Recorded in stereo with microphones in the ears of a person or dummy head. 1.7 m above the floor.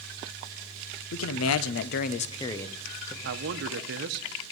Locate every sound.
1.1 s a man speaking: 80° left, 0.9 m; by 3.1 s centre (ahead or behind), 1.2 m
3.2 s a man speaking: 60° right (ahead or behind), 0.9 m